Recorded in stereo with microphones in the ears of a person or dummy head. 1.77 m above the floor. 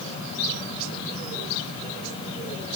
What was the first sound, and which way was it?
Only background noise.